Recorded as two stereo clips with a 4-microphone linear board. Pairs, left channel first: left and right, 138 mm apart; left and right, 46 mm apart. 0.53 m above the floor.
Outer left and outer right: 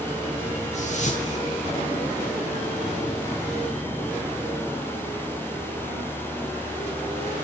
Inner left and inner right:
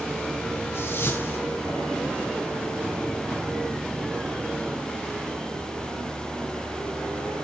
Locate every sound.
0.7 s a whoosh: 60° left (ahead or behind), 10 m